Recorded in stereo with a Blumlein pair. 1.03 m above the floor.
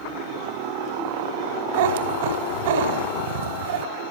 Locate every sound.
1.7 s a cat meowing: 55° right, 2.5 m